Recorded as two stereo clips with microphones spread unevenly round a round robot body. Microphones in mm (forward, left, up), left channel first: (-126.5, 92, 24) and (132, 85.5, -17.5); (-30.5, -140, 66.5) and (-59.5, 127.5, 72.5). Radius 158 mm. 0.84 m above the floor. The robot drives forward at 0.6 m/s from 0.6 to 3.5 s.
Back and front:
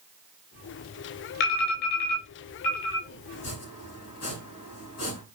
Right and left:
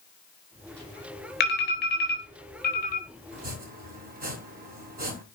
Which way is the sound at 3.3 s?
155° left.